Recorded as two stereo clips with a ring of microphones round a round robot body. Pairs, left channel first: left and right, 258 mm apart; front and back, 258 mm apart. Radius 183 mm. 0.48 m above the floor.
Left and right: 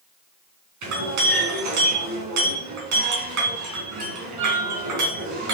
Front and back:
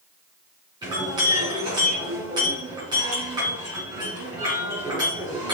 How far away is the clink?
About 3.5 m.